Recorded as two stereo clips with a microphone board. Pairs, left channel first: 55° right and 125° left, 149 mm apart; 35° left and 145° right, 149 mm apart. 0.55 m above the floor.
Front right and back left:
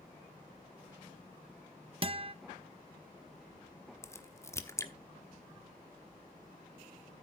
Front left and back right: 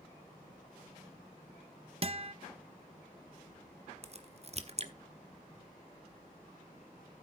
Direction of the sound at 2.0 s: 170° left.